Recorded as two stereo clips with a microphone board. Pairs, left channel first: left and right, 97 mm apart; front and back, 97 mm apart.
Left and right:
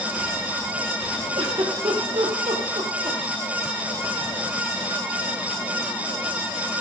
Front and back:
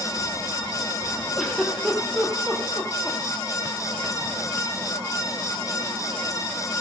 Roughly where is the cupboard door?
No cupboard door in this recording.